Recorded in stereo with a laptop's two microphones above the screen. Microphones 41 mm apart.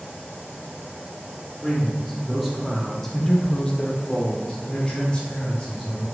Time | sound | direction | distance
1.6 | a man speaking | 10° right (ahead or behind) | 2.5 m